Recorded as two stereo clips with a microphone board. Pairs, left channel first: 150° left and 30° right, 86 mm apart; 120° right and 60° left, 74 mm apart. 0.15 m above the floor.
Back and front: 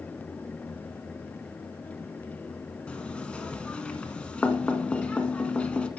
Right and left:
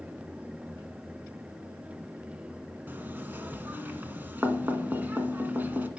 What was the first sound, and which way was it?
Knocking, 90° left.